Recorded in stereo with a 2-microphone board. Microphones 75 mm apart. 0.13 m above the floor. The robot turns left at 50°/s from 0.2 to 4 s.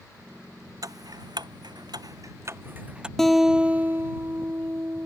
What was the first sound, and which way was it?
Ticking, 55° right (ahead or behind).